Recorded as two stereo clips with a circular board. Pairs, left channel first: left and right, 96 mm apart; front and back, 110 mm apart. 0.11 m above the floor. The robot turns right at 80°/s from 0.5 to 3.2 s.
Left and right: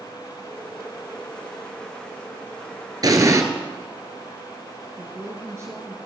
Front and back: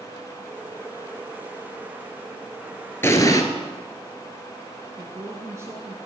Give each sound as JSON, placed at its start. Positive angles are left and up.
{"t": 3.0, "sound": "an explosion", "azimuth_deg": -60, "distance_m": 1.0}
{"t": 5.0, "sound": "a woman speaking", "azimuth_deg": -130, "distance_m": 1.7}